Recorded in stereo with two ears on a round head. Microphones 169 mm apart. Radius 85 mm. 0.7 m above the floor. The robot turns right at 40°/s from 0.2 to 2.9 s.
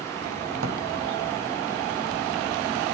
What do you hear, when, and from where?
0.6 s a drawer: 75° right (ahead or behind), 1.1 m; by 0.8 s 85° right, 1.1 m